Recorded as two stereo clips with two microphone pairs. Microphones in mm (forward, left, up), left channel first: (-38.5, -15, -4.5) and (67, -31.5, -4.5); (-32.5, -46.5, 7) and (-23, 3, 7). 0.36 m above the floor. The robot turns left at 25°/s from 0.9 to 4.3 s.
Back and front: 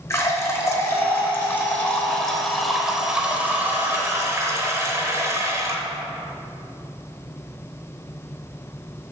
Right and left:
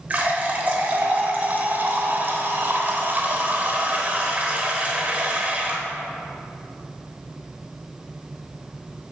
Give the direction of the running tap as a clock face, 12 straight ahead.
8 o'clock.